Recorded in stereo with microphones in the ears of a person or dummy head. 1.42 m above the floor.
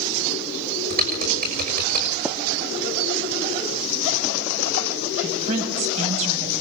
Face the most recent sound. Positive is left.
turn(degrees=-40)  # may be behind; listen again after turning